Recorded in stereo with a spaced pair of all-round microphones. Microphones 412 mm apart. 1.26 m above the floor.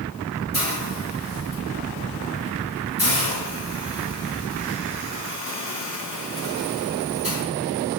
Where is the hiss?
35° left (ahead or behind), 2.5 m.